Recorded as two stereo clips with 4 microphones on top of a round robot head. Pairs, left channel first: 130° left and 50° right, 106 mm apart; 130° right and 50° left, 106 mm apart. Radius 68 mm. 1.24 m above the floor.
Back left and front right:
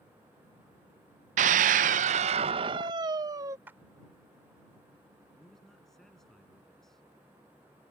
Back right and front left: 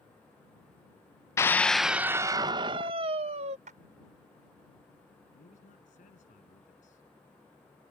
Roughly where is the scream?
Ahead right.